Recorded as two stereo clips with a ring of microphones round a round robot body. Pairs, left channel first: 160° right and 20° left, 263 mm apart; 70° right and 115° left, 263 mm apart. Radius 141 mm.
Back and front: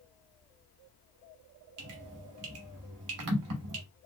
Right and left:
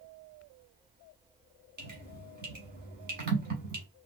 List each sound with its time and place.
1.8 s dripping: 55° left, 1.2 m